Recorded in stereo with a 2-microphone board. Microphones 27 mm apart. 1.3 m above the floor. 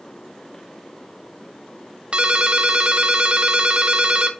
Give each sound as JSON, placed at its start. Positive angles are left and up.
{"t": 2.1, "sound": "a ringtone", "side_deg": -45, "distance_m": 0.9}